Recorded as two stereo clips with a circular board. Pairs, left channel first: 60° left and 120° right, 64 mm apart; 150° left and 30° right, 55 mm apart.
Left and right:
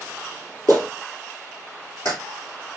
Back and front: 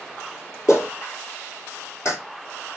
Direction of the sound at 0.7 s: 110° left.